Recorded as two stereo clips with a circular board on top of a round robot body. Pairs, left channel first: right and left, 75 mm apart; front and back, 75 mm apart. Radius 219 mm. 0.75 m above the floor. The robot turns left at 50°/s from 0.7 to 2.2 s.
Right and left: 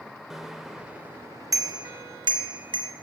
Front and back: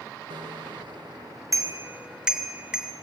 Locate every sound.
0.3 s a bicycle bell: 175° left, 2.5 m; by 2.9 s 100° left, 2.5 m